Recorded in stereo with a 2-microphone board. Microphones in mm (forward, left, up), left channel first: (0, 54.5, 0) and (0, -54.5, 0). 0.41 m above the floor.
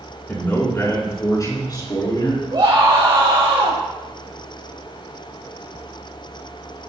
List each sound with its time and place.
0.3 s a man speaking: 20° left (ahead or behind), 3.5 m; by 2.4 s 45° left (ahead or behind), 5 m
2.5 s a scream: 45° right (ahead or behind), 3 m